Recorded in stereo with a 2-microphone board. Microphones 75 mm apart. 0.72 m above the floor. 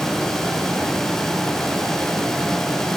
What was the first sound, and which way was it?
Only background noise.